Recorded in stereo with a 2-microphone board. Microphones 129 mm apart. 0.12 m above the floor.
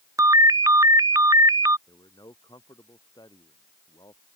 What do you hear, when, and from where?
0.2 s a ringtone: 25° right (ahead or behind)
1.9 s a man speaking: 30° left (ahead or behind)